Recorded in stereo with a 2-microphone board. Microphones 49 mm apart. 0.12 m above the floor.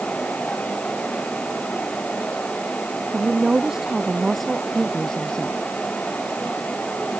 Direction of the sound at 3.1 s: 15° right (ahead or behind).